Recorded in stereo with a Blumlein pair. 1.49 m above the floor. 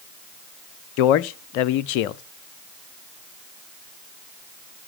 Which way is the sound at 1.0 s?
45° left.